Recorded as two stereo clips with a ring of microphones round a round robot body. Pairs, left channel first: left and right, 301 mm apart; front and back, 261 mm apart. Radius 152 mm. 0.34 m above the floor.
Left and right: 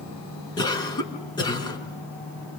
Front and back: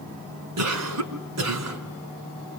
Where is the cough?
165° left, 5 m.